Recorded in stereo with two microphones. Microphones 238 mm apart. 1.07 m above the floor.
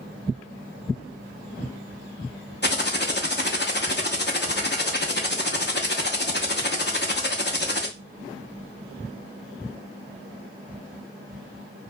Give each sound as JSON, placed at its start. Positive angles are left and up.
{"t": 2.6, "sound": "typing on a keyboard", "side_deg": 45, "distance_m": 0.6}